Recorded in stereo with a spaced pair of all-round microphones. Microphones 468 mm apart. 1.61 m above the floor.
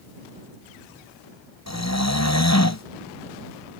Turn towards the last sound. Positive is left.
turn(degrees=35)  # may be behind; listen again after turning